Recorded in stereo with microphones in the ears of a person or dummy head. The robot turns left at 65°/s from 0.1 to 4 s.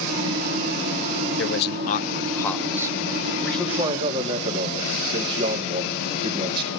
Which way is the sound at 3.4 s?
10° left.